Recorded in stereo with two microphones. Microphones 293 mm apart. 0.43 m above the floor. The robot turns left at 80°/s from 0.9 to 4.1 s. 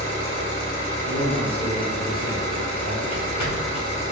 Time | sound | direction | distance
0.0 | an engine running | 40° left | 1.4 m
1.0 | a man speaking | 50° left | 1.3 m
3.1 | footsteps | 50° left (ahead or behind) | 1.3 m